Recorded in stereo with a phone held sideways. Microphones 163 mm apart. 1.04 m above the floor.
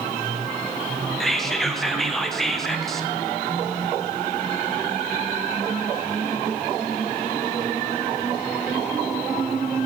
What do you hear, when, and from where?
1.2 s whispering: centre (ahead or behind), 0.8 m